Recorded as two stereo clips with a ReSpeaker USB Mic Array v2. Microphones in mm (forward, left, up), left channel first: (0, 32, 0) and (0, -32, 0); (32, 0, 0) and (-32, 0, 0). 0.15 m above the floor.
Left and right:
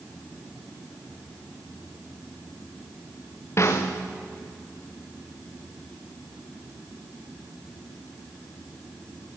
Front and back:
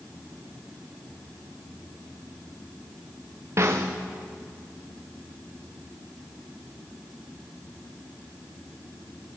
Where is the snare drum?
135° left, 3 m.